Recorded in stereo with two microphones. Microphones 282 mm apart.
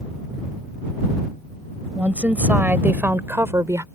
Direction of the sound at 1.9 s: 5° right (ahead or behind).